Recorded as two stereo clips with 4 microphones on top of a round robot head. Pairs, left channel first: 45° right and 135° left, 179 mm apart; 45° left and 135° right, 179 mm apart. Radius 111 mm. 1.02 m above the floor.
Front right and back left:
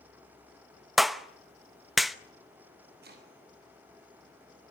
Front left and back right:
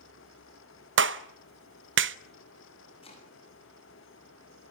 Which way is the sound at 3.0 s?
105° left.